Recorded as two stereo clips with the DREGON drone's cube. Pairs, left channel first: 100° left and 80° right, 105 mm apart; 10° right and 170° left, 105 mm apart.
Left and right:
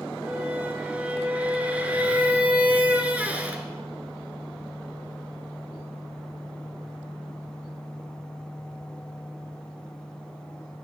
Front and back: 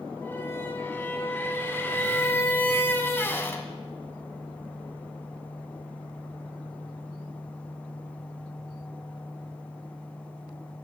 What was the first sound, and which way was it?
A squeak, 30° right.